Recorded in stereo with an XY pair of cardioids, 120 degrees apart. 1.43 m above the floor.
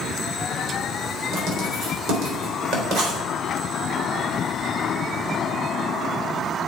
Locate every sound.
1.3 s writing: 60° right, 3.5 m